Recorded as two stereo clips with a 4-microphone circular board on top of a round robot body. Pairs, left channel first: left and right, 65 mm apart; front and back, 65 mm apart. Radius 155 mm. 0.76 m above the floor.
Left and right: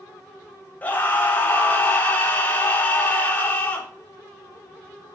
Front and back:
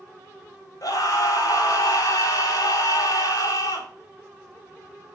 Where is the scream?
25° left, 3 m.